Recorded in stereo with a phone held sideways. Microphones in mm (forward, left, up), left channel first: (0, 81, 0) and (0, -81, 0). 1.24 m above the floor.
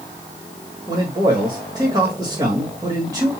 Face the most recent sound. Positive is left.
turn(degrees=-25)  # may be behind; listen again after turning